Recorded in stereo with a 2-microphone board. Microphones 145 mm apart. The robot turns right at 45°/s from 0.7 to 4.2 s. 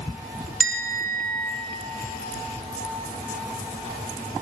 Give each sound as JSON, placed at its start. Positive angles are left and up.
{"t": 0.6, "sound": "a bell", "azimuth_deg": 115, "distance_m": 0.6}